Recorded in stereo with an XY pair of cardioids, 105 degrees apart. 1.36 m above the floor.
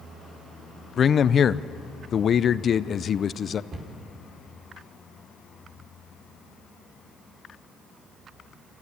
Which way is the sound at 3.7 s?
50° right.